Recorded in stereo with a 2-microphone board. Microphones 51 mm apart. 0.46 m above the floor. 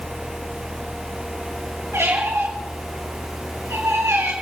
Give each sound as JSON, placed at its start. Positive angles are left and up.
{"t": 1.9, "sound": "a squeak", "side_deg": -55, "distance_m": 5.5}